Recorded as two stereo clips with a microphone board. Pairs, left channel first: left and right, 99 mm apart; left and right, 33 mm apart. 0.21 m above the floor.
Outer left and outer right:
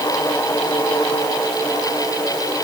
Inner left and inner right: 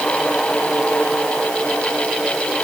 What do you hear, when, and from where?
Only background noise.